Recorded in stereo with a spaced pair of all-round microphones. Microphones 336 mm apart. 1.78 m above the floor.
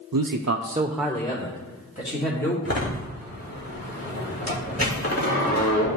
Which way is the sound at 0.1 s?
80° right.